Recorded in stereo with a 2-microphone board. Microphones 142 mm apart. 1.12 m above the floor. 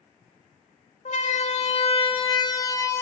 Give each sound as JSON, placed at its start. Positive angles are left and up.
{"t": 1.1, "sound": "a siren", "side_deg": 60, "distance_m": 3.0}